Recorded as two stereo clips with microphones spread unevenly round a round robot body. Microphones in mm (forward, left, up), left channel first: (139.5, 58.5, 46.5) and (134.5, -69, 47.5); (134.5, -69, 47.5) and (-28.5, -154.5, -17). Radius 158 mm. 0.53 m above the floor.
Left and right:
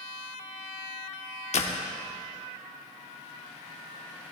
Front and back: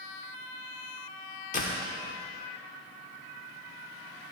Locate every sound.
1.5 s a door slam: 95° left, 0.9 m